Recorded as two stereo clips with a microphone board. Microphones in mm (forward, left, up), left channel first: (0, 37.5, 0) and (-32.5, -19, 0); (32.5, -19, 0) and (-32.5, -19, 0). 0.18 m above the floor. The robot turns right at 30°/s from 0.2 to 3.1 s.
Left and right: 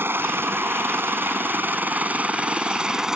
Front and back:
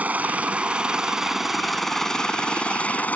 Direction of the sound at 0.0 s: 135° right.